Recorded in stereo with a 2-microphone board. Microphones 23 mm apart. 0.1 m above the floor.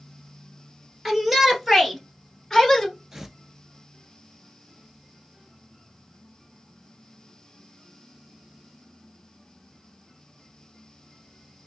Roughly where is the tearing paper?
Right.